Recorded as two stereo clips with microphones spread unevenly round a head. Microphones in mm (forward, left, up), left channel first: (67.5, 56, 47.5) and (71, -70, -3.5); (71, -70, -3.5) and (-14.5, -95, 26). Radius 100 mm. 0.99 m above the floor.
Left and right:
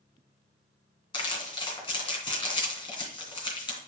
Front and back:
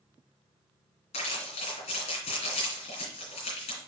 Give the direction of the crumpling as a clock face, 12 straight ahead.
10 o'clock.